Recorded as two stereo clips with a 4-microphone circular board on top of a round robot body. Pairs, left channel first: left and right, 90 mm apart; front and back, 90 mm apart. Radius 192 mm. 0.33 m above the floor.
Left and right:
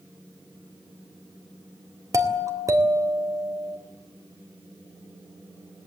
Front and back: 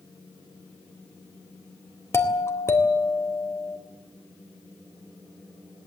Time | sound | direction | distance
2.1 | a doorbell | 50° right | 2.5 m